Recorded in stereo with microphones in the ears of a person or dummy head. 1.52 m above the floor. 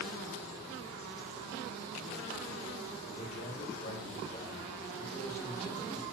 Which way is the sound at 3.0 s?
50° left (ahead or behind).